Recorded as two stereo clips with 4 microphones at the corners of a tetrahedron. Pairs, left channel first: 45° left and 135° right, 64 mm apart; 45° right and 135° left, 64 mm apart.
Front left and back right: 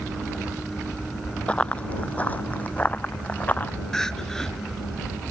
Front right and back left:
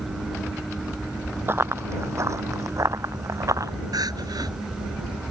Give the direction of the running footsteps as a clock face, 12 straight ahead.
8 o'clock.